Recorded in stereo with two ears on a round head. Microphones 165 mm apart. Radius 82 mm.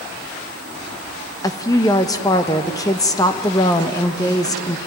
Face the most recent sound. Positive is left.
turn(degrees=20)  # may be behind; listen again after turning